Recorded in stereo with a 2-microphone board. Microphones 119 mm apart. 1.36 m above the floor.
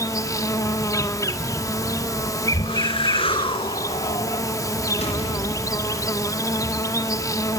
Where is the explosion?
65° left (ahead or behind), 3.5 m.